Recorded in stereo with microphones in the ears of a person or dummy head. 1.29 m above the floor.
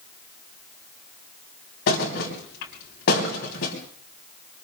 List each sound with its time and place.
1.9 s a thud: 70° left (ahead or behind), 3.5 m